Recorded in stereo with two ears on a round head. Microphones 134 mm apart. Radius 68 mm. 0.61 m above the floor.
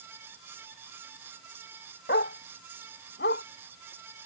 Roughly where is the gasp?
No gasp in this recording.